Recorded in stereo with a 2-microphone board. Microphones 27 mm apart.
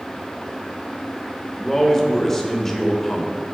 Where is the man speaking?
15° left (ahead or behind), 1.1 m.